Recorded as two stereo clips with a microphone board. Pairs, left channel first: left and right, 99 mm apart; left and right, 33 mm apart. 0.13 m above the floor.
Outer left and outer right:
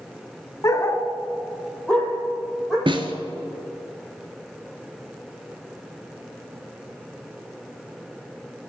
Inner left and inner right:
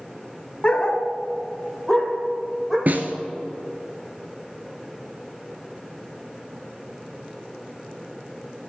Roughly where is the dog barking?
Left.